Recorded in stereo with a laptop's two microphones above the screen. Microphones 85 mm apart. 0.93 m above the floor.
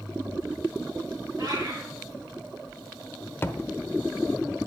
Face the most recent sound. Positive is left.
turn(degrees=25)  # may be behind; listen again after turning